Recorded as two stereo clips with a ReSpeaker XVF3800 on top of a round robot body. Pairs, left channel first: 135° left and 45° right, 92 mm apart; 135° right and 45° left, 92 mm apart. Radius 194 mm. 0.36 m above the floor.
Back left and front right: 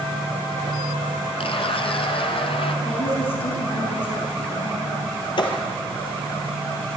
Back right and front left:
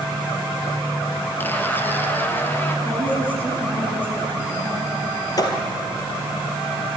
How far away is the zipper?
About 1.7 m.